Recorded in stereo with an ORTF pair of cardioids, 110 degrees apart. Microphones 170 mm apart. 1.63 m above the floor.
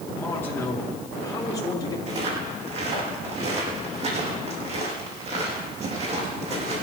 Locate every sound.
0.1 s a man speaking: 10° left, 4.5 m; by 2.0 s 25° left, 4 m
2.1 s footsteps: 45° right, 5.5 m